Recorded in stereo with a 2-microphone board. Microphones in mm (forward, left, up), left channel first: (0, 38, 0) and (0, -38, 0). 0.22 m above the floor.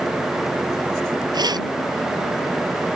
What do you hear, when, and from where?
1.3 s keys jangling: 65° right (ahead or behind)